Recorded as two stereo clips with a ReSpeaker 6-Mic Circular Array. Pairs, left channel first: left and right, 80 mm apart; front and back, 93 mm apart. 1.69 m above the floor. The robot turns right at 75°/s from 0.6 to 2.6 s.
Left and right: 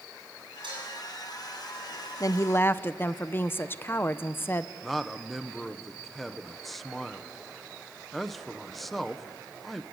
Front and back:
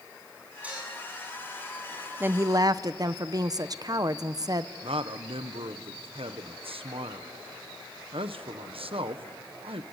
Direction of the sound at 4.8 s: 175° left.